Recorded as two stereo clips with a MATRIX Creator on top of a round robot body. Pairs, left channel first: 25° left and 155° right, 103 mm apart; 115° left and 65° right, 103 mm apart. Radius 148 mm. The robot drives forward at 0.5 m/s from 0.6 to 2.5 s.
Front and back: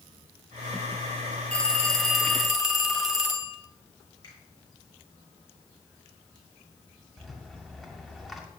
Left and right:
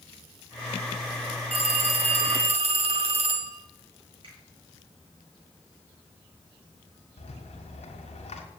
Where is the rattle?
115° left, 1.9 m.